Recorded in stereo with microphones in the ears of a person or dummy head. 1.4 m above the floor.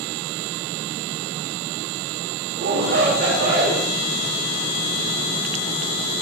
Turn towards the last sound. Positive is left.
turn(degrees=-65)  # may be behind; listen again after turning